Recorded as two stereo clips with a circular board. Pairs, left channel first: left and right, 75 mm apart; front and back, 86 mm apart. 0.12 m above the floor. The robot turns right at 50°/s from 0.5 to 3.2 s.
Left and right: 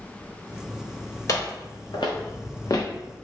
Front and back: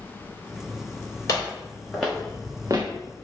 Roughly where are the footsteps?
Ahead left.